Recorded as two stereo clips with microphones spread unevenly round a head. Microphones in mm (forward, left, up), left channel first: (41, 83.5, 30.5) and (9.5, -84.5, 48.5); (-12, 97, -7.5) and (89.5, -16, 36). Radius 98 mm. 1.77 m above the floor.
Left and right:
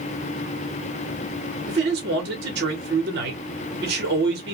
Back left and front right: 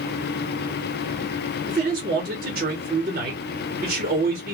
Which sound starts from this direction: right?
A man speaking, at 1.7 s.